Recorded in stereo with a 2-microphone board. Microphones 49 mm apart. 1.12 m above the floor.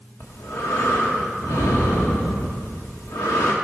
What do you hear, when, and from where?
0.2 s breathing: 70° left (ahead or behind), 1.6 m